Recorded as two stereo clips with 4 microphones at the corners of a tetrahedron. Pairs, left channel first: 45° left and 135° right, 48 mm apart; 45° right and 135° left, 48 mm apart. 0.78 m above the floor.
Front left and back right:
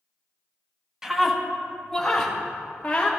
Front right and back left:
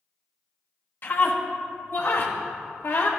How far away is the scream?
About 1.2 m.